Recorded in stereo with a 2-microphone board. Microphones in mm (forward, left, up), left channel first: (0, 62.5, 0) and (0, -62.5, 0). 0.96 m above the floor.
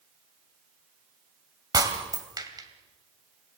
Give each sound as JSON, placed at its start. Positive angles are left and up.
{"t": 1.7, "sound": "breaking glass", "side_deg": -30, "distance_m": 2.5}